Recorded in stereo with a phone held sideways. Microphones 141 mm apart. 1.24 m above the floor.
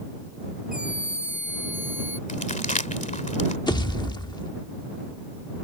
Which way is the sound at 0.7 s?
65° left (ahead or behind).